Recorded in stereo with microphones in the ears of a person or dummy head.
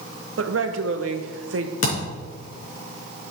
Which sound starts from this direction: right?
A woman speaking, at 0.4 s.